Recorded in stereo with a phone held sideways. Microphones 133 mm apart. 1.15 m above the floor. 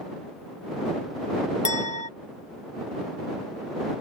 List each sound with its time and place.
1.6 s a clink: 60° left (ahead or behind)